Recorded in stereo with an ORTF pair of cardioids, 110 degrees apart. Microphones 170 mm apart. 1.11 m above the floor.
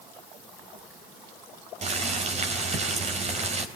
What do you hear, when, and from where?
1.8 s boiling: 40° right, 3.5 m